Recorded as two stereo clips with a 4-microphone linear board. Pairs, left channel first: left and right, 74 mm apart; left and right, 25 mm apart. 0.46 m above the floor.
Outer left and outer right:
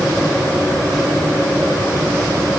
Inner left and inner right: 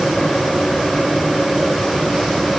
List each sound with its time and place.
Only background noise.